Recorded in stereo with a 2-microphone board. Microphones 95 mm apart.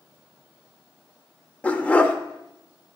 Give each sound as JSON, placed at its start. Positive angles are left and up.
{"t": 1.6, "sound": "a dog barking", "side_deg": 15, "distance_m": 0.6}